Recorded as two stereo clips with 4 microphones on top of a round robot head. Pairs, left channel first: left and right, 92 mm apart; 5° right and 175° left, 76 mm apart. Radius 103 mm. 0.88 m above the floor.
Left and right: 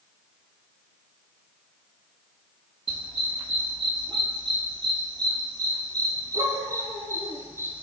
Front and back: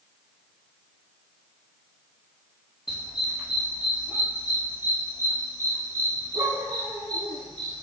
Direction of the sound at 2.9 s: 100° right.